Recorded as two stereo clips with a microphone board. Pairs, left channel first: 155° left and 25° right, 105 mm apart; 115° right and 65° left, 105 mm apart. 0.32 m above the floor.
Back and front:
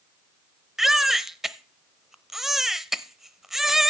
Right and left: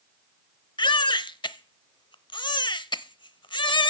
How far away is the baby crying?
About 0.6 m.